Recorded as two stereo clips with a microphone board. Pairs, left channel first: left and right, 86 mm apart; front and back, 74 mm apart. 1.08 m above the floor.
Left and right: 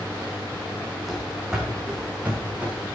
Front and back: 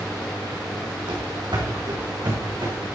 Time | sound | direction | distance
1.1 | running footsteps | straight behind | 3.5 m